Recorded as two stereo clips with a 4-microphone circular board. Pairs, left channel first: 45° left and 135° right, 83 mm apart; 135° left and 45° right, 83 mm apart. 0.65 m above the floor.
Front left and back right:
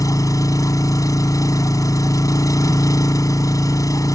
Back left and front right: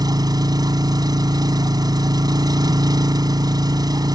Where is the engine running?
5° right.